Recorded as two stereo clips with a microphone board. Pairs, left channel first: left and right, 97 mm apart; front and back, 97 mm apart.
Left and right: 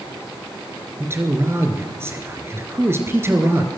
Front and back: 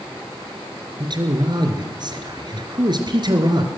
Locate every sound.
1.0 s a man speaking: 150° right, 3 m